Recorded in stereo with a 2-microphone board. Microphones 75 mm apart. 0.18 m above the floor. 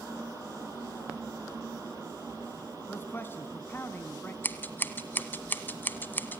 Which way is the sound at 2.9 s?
30° left (ahead or behind).